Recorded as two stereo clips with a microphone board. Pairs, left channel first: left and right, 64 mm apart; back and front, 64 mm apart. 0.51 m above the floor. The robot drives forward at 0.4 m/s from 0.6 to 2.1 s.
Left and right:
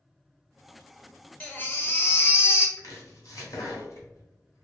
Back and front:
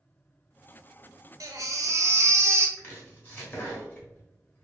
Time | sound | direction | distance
1.4 | a baby crying | 25° left | 0.7 m
2.8 | chopping | 120° left | 1.0 m